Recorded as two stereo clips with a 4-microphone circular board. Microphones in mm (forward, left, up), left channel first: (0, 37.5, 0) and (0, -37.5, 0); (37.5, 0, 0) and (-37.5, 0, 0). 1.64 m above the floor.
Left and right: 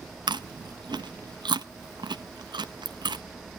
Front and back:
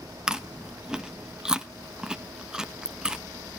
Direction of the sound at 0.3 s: 100° right.